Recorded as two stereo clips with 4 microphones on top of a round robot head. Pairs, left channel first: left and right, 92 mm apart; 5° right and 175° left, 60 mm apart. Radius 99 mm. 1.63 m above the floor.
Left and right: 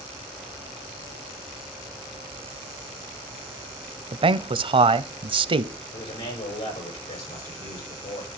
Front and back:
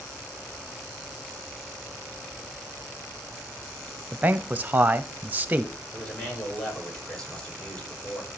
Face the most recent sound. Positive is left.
turn(degrees=75)